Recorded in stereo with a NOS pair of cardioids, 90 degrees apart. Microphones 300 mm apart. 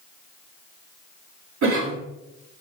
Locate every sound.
1.6 s a cough: 65° right, 3.5 m